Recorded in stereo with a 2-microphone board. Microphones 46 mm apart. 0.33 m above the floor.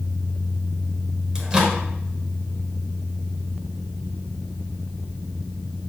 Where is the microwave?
20° right (ahead or behind), 0.7 m.